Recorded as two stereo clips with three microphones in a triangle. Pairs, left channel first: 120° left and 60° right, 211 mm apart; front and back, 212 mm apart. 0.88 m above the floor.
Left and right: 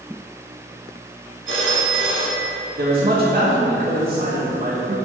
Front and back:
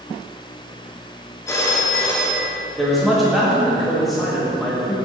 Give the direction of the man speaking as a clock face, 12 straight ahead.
3 o'clock.